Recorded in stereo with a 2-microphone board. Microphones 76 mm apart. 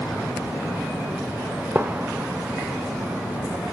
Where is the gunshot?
25° right (ahead or behind), 0.6 m.